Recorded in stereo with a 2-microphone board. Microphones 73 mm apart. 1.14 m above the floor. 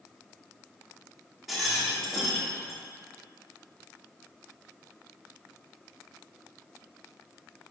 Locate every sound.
1.5 s a rattle: centre (ahead or behind), 0.7 m